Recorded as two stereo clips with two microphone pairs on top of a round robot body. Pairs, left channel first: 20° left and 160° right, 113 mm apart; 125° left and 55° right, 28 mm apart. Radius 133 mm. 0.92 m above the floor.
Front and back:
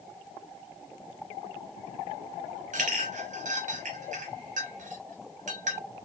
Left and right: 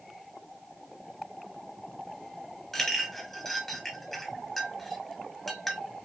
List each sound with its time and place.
2.7 s a clink: 155° right, 0.9 m